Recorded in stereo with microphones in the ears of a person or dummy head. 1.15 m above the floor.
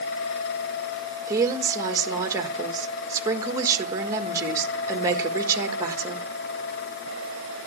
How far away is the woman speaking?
About 1.5 m.